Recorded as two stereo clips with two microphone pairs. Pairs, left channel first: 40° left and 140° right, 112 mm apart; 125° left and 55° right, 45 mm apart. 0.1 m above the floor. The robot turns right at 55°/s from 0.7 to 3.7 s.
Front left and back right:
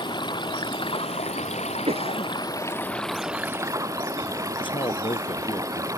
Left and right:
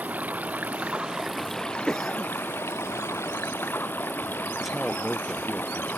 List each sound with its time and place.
0.0 s running water: 5° right; by 6.0 s 160° left
1.9 s a cough: 160° right; by 2.3 s 135° right
4.6 s a man speaking: 30° left